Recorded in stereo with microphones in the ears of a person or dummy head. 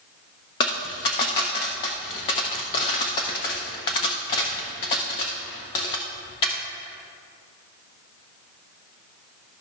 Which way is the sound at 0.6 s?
20° left (ahead or behind).